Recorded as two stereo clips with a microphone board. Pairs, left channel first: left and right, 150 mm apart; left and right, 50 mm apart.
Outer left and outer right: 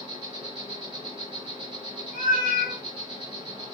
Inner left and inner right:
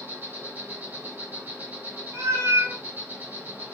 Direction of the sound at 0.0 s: 40° right (ahead or behind).